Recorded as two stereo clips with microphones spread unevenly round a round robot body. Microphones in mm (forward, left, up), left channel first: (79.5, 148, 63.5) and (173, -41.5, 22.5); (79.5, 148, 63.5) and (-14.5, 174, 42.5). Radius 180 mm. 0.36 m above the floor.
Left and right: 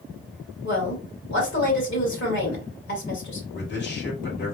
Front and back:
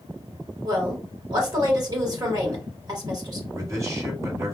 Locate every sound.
0.6 s a woman speaking: 155° left, 2 m
3.5 s a man speaking: 145° left, 1.7 m